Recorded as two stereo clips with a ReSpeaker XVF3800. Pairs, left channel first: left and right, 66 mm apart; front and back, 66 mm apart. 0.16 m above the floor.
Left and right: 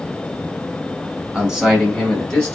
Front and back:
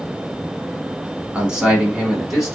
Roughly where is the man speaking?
Behind right.